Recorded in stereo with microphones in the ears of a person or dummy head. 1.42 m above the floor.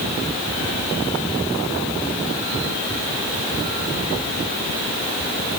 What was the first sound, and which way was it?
Only background noise.